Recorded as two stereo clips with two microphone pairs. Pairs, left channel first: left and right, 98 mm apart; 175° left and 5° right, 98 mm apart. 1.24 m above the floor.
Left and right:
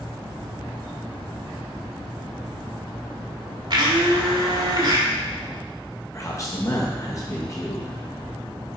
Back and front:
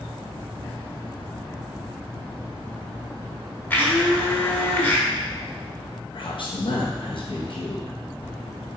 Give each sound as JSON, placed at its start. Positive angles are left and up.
{"t": 3.7, "sound": "a blender", "azimuth_deg": -115, "distance_m": 1.4}
{"t": 6.1, "sound": "a man speaking", "azimuth_deg": 145, "distance_m": 0.9}